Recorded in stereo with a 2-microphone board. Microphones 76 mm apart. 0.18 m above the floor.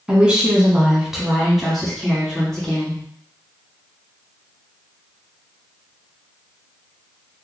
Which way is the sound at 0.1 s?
15° right (ahead or behind).